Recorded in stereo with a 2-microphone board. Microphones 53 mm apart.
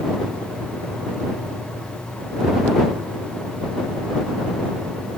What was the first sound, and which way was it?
Only background noise.